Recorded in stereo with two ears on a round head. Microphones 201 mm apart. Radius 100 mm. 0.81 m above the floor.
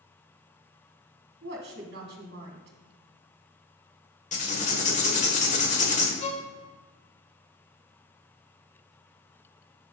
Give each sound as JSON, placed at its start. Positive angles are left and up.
{"t": 1.4, "sound": "a woman speaking", "side_deg": -50, "distance_m": 1.8}
{"t": 4.3, "sound": "writing", "side_deg": 35, "distance_m": 1.5}
{"t": 6.2, "sound": "a violin", "side_deg": 30, "distance_m": 1.1}